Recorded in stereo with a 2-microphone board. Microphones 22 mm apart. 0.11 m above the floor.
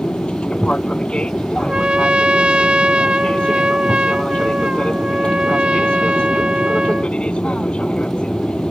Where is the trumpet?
65° right (ahead or behind).